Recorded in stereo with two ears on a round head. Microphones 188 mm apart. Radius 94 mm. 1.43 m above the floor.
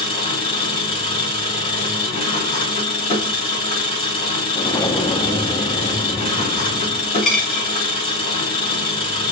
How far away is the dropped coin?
About 2.5 m.